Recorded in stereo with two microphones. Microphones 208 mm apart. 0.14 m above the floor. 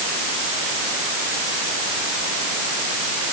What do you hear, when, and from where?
Only background noise.